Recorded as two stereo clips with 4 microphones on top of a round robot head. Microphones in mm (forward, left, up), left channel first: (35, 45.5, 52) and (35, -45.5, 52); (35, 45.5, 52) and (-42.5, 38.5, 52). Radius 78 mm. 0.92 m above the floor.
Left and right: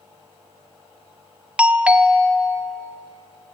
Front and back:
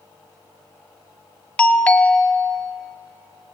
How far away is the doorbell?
About 1.3 m.